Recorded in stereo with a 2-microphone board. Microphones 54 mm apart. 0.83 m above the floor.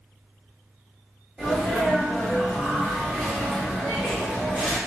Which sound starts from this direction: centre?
A sneeze, at 1.4 s.